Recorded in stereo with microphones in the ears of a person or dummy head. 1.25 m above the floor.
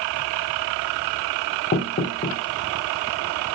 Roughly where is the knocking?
Left.